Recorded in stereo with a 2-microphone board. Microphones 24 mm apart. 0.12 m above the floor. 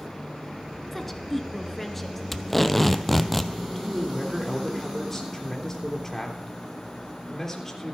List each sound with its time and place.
0.9 s a woman speaking: 15° left (ahead or behind), 1.2 m
2.3 s tape being pulled: 10° left (ahead or behind), 0.7 m
3.8 s a man speaking: 20° left (ahead or behind), 3 m